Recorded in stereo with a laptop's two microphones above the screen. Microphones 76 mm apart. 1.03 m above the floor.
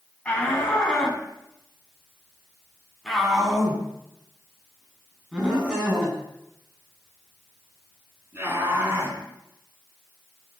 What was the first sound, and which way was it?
A shout, 15° left (ahead or behind).